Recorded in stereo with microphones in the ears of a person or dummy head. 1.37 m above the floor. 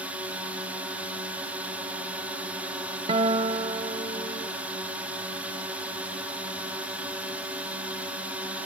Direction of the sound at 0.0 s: 5° right (ahead or behind).